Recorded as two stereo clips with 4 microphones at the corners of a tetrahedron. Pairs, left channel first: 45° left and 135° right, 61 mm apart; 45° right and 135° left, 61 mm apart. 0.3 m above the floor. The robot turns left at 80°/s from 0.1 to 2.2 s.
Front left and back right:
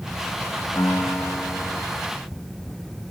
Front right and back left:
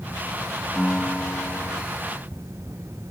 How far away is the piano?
About 1.1 m.